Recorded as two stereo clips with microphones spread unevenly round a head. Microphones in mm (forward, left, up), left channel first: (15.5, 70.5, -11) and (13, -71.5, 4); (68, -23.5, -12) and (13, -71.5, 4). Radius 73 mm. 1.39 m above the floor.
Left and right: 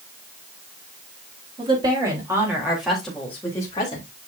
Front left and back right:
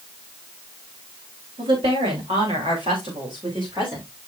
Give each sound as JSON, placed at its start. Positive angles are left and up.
{"t": 1.6, "sound": "a woman speaking", "azimuth_deg": -150, "distance_m": 4.0}